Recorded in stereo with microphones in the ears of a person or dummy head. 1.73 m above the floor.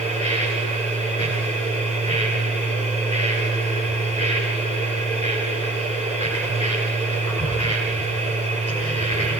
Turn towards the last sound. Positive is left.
turn(degrees=25)  # may be behind; listen again after turning